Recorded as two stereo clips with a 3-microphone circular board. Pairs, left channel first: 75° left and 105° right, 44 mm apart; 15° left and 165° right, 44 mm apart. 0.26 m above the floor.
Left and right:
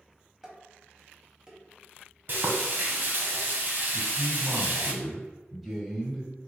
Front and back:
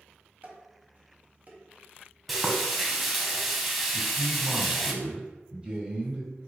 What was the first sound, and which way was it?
Dishes clattering, 170° right.